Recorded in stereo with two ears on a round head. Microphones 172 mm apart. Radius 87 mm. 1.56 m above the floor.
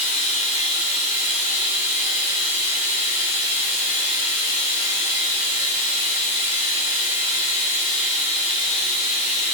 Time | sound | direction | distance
0.0 | running water | 45° left (ahead or behind) | 1.8 m